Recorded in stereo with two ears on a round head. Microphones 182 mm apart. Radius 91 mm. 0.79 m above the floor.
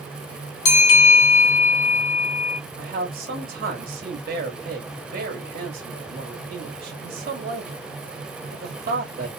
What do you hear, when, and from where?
0.7 s a bell: 70° left (ahead or behind), 2.5 m
2.8 s a man speaking: 40° right (ahead or behind), 1.7 m